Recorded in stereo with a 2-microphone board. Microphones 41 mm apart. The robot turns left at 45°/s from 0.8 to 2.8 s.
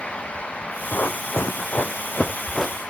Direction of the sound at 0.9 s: 65° left (ahead or behind).